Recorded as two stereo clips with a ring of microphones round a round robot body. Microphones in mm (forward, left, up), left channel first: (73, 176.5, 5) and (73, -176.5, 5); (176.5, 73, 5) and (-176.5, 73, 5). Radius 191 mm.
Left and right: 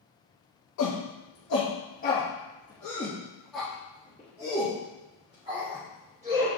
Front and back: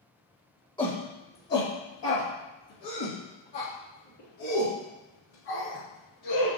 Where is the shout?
75° left, 1.4 m; by 6.6 s 20° right, 3 m.